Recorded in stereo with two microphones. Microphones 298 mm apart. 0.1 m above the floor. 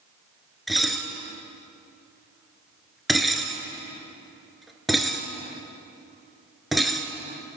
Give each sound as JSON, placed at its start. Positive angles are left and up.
{"t": 0.7, "sound": "dishes clattering", "side_deg": 0, "distance_m": 0.9}